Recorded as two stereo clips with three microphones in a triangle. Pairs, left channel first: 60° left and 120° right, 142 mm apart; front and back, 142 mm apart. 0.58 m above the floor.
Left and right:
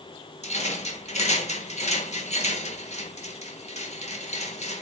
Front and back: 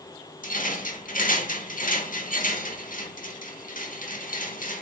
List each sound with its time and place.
0.4 s a rattle: 20° left, 0.9 m